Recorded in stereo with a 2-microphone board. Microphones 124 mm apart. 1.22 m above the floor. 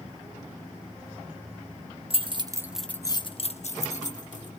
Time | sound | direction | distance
2.1 | keys jangling | 50° right (ahead or behind) | 0.9 m